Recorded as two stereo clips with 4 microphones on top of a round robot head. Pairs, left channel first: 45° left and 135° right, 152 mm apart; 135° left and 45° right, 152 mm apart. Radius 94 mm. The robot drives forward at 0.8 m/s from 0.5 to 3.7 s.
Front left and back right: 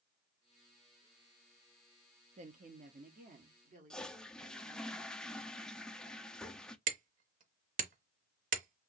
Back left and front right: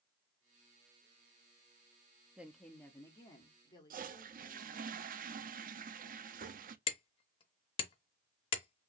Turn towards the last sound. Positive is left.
turn(degrees=-170)